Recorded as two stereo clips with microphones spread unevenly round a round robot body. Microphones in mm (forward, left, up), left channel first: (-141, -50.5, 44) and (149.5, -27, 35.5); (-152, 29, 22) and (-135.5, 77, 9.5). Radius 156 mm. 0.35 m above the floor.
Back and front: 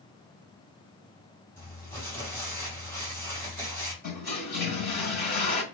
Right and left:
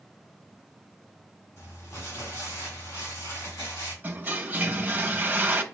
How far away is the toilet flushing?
About 1.2 m.